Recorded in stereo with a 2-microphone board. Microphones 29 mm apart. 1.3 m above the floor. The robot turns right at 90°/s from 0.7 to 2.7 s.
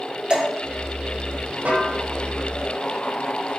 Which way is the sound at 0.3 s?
35° right (ahead or behind).